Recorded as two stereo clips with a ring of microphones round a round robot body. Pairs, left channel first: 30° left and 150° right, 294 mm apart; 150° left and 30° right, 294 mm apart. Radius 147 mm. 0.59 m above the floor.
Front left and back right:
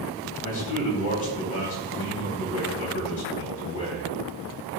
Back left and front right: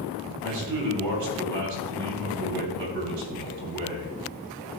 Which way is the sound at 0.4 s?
15° right.